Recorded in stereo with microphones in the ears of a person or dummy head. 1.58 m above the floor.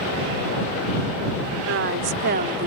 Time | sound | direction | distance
1.7 | a woman speaking | 65° right (ahead or behind) | ?